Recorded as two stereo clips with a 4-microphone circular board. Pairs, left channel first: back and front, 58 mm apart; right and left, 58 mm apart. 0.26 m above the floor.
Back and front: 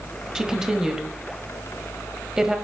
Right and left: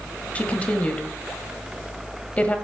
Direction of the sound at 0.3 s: 70° right.